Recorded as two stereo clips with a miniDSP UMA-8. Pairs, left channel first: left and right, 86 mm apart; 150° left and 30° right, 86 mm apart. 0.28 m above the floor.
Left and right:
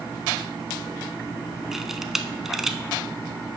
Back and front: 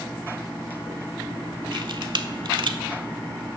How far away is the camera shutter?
About 0.5 m.